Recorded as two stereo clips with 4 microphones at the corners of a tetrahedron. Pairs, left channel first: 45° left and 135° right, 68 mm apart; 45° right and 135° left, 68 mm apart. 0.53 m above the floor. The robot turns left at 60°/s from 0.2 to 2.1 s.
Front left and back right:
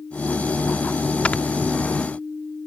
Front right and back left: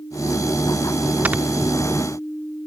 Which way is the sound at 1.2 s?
100° left.